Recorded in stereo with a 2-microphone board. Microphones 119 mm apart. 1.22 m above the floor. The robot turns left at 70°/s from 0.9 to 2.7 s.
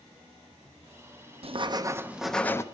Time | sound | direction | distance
1.4 | writing | 120° right | 0.5 m